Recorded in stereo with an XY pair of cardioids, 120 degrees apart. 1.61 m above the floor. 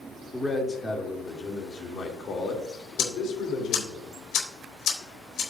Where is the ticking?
65° left, 4.5 m.